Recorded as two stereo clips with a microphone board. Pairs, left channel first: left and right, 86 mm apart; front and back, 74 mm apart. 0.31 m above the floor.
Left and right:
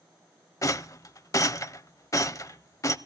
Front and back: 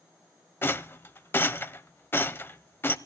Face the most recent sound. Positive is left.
turn(degrees=50)